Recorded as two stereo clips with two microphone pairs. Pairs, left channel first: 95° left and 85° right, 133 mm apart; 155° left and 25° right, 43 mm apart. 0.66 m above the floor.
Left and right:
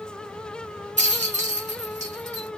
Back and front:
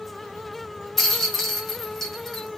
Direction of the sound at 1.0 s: 115° right.